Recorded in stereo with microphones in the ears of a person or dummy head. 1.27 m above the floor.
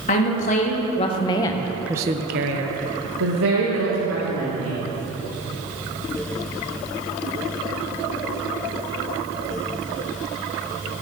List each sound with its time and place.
0.1 s a woman speaking: 45° left (ahead or behind), 2 m; by 4.8 s 70° right (ahead or behind), 3 m